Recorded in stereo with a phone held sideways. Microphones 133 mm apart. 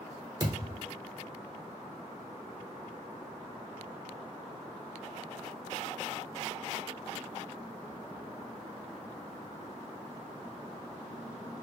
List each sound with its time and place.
0.4 s a thud: 30° right (ahead or behind), 0.9 m